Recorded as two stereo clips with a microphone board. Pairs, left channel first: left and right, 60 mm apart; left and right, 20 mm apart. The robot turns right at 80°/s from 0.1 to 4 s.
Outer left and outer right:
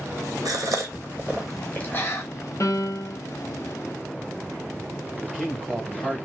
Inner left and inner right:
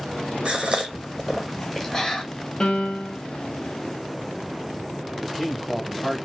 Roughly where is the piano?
Ahead left.